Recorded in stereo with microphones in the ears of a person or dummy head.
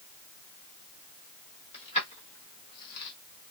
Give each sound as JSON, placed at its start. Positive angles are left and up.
{"t": 1.7, "sound": "keys jangling", "side_deg": 35, "distance_m": 1.5}